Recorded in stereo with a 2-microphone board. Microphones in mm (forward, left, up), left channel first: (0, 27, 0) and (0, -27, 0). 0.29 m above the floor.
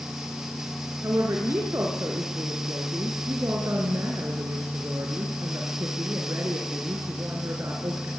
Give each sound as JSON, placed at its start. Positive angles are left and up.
{"t": 1.0, "sound": "a woman speaking", "side_deg": -55, "distance_m": 4.5}